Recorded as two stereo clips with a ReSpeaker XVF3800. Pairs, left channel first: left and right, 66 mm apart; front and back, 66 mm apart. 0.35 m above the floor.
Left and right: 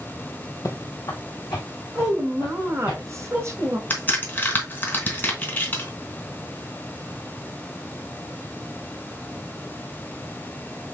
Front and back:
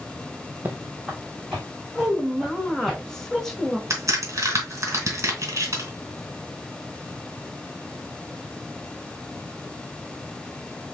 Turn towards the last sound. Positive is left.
turn(degrees=145)